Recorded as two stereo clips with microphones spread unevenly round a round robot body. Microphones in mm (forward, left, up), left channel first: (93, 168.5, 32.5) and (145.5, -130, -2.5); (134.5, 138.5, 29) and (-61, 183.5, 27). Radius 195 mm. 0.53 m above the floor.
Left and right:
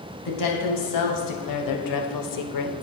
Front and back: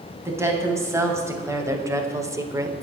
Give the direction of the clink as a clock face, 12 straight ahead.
No clink in this recording.